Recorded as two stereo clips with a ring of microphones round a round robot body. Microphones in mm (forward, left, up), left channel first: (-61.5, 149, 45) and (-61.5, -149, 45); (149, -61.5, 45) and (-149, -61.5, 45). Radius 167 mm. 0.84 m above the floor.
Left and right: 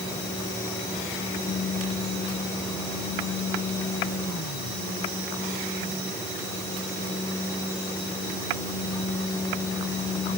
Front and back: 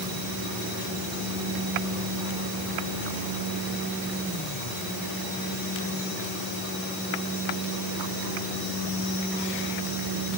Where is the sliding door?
I don't hear a sliding door.